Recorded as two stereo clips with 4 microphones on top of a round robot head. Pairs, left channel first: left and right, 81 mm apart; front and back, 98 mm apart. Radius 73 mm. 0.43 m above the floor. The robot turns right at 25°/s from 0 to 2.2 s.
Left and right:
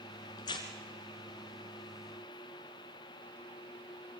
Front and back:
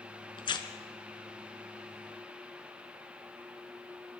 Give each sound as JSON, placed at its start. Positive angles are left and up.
{"t": 0.4, "sound": "tearing paper", "azimuth_deg": 35, "distance_m": 2.0}